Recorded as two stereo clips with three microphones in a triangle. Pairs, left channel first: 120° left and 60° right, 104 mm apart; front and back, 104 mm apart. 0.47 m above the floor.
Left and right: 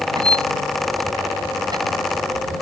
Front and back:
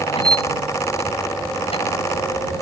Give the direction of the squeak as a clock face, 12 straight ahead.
12 o'clock.